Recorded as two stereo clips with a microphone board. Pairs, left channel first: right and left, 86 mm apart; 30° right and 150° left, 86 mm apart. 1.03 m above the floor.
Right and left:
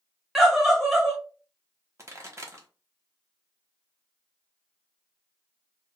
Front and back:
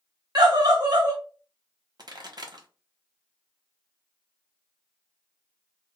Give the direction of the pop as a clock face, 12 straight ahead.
7 o'clock.